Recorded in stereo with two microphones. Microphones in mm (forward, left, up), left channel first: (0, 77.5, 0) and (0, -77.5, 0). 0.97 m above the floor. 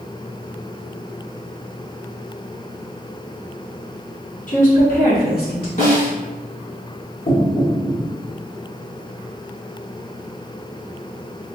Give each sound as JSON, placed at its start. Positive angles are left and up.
{"t": 4.5, "sound": "a woman speaking", "side_deg": 55, "distance_m": 1.5}
{"t": 5.8, "sound": "a snare drum", "side_deg": 65, "distance_m": 1.7}
{"t": 7.3, "sound": "knocking", "side_deg": 70, "distance_m": 1.7}